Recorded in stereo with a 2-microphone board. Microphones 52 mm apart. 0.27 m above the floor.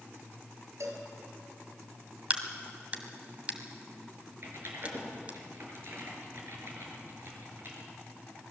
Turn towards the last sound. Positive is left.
turn(degrees=-50)  # may be behind; listen again after turning